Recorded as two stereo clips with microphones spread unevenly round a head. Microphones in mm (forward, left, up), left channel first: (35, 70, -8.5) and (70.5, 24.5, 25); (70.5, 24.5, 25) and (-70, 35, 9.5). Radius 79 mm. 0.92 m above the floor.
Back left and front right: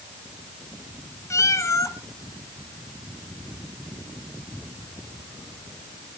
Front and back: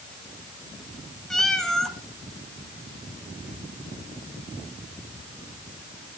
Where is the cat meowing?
80° left, 1.8 m.